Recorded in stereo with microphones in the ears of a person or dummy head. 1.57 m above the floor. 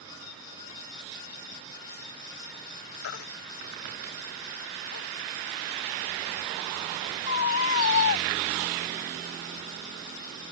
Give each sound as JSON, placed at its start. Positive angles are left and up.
{"t": 3.0, "sound": "a baby crying", "side_deg": 75}